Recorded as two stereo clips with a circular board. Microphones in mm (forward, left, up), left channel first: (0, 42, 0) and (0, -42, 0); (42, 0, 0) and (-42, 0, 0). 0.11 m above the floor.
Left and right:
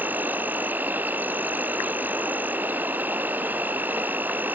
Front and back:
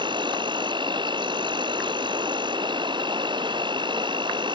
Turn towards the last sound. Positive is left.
turn(degrees=-160)